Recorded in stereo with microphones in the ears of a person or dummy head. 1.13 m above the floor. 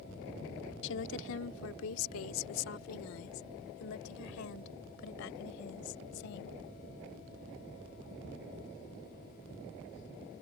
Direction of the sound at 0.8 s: 70° left (ahead or behind).